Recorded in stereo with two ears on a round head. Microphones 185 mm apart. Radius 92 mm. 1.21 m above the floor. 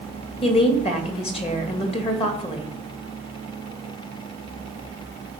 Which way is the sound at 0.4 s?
30° left (ahead or behind).